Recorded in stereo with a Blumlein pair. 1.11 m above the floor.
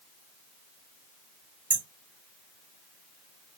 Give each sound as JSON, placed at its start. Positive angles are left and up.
{"t": 1.7, "sound": "hammering", "azimuth_deg": -60, "distance_m": 3.0}